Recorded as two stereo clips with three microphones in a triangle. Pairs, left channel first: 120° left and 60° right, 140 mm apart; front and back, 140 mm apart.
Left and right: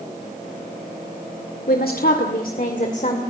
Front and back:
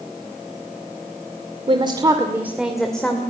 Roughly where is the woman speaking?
Behind left.